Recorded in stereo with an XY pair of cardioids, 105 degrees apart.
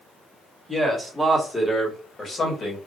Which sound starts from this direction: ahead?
A man speaking, at 0.7 s.